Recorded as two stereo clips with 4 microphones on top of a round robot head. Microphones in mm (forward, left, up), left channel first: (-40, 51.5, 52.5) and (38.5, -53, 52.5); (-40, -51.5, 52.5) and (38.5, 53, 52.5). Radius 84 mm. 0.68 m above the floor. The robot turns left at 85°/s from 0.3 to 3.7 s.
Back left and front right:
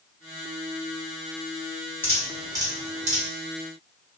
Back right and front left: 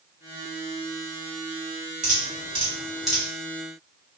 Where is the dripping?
55° left, 1.3 m; by 3.2 s 50° right, 1.3 m.